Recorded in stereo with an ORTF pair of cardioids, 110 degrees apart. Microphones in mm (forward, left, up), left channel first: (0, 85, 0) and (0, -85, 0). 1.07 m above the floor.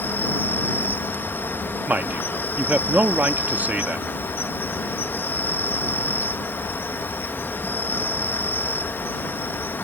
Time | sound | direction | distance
0.0 | an insect | 10° left | ?
1.9 | a man speaking | 10° right | ?